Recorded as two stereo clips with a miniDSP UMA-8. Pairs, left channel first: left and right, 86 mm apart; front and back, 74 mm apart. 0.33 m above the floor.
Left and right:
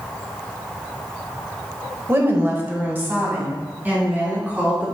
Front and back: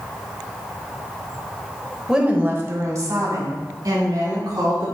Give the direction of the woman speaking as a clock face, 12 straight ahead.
4 o'clock.